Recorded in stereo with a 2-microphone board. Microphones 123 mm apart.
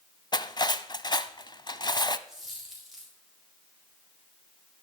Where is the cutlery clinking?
35° left (ahead or behind), 0.7 m.